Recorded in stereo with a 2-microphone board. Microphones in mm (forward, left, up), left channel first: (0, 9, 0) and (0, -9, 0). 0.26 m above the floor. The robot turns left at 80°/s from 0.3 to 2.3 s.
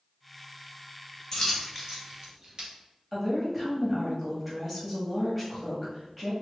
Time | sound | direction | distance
1.3 | a dropped coin | 25° left (ahead or behind) | 1.5 m
3.1 | a woman speaking | 5° right (ahead or behind) | 1.5 m